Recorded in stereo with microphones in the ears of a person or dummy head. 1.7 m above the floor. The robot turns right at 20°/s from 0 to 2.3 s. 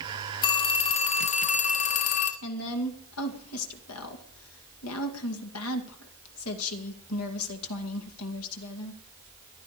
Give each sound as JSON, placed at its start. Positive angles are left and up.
{"t": 0.4, "sound": "a phone ringing", "azimuth_deg": 30, "distance_m": 1.6}
{"t": 2.4, "sound": "a woman speaking", "side_deg": 80, "distance_m": 2.5}